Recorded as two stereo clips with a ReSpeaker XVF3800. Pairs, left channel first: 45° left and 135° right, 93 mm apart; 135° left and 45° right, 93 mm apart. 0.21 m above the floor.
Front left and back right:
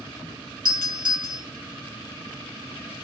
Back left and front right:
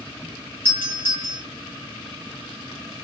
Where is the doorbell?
160° right, 3 m.